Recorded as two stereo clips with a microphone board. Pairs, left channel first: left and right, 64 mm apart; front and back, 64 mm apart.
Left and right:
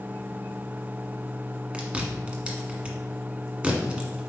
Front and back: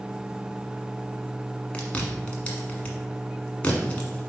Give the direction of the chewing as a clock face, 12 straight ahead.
1 o'clock.